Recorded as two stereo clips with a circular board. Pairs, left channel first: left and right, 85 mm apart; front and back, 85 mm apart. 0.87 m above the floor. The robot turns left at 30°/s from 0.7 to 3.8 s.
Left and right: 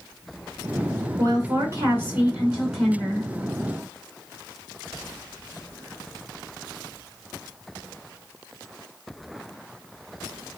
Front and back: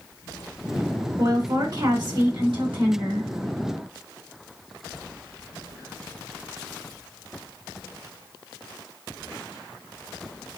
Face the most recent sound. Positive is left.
turn(degrees=150)